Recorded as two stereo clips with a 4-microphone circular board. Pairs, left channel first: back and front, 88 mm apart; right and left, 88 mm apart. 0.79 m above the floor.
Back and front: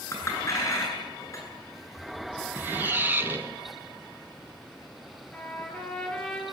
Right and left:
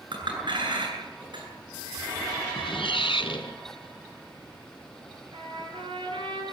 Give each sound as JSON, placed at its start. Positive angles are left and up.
{"t": 0.1, "sound": "a clink", "azimuth_deg": 125, "distance_m": 9.0}
{"t": 2.5, "sound": "a squeak", "azimuth_deg": -70, "distance_m": 2.5}
{"t": 5.3, "sound": "a trumpet", "azimuth_deg": 105, "distance_m": 9.0}